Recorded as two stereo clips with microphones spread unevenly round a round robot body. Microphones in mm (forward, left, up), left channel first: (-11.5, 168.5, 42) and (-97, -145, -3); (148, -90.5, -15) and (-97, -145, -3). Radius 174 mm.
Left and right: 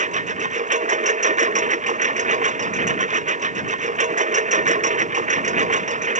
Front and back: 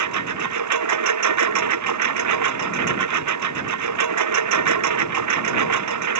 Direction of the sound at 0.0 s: 175° right.